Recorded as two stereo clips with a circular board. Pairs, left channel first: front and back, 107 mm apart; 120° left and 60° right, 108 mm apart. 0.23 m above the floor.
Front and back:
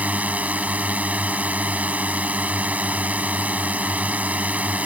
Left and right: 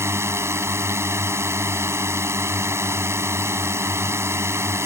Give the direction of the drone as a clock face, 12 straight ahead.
4 o'clock.